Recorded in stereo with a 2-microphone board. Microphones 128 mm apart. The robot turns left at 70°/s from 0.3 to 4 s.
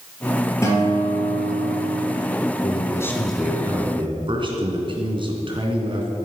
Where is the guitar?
160° left, 4 m; by 2.0 s 60° left, 4 m.